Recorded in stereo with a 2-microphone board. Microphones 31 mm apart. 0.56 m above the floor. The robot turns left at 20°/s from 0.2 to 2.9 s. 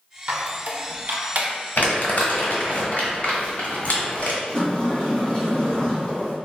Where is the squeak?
50° right (ahead or behind), 0.6 m; by 1.5 s 55° right (ahead or behind), 0.6 m.